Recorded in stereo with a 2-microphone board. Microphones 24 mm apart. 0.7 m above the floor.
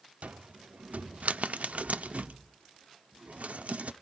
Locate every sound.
0.2 s a cupboard door: 80° right, 0.6 m